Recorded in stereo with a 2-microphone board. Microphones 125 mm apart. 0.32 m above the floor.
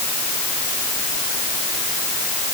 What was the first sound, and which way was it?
Only background noise.